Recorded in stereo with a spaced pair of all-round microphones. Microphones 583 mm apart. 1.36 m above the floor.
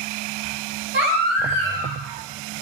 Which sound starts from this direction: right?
A baby crying, at 0.9 s.